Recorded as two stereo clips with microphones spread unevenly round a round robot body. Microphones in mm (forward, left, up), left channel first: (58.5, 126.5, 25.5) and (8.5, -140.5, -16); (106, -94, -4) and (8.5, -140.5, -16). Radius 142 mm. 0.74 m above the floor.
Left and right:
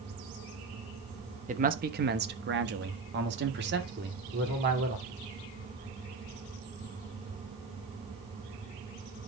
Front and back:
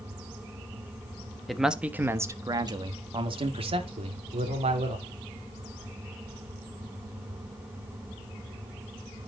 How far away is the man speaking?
About 1.1 m.